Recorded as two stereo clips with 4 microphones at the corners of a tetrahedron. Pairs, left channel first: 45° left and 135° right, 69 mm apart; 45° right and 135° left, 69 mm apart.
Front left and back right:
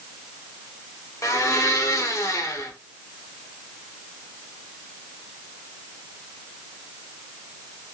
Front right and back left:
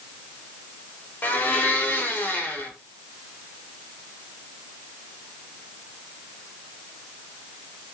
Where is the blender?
10° left, 0.7 m.